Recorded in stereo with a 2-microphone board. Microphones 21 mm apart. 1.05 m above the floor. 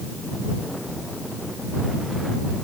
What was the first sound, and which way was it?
Only background noise.